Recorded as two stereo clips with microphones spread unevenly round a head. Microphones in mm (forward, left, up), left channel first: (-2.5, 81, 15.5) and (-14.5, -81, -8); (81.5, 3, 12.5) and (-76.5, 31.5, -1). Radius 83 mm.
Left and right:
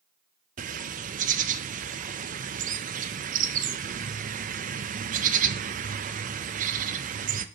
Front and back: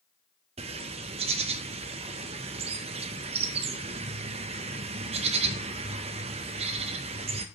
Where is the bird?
135° right, 0.5 m.